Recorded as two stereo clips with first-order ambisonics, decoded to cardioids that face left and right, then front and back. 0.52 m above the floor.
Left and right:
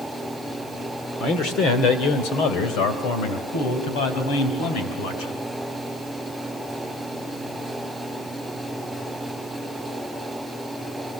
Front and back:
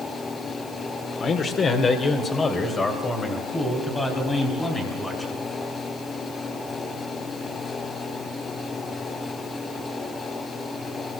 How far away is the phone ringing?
No phone ringing in this recording.